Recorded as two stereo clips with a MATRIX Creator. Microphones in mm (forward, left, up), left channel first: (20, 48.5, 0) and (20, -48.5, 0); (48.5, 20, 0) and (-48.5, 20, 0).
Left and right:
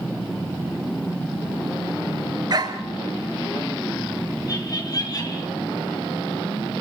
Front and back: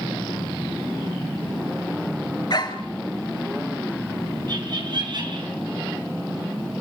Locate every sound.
2.5 s a dog barking: 45° right, 1.8 m
4.5 s laughter: 140° left, 5.5 m